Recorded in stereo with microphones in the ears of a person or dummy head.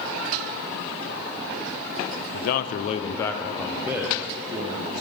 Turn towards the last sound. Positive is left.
turn(degrees=-30)  # may be behind; listen again after turning